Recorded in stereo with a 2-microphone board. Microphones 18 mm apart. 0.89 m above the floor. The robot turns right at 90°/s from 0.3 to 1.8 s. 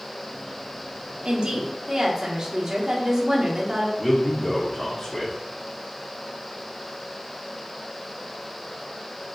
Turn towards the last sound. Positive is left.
turn(degrees=5)  # may be behind; listen again after turning